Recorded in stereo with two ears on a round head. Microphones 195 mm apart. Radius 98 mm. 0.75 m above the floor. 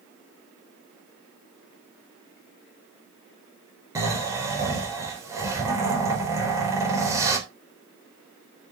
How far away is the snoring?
About 3.5 m.